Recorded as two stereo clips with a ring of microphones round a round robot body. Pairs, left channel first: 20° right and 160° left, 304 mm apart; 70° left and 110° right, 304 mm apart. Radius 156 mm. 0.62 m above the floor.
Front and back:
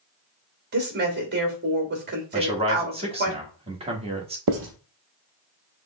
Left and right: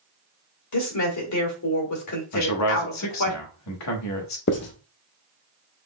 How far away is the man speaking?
About 1.3 m.